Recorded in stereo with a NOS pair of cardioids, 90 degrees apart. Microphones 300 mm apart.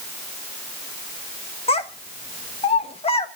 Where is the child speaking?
20° left, 1.3 m.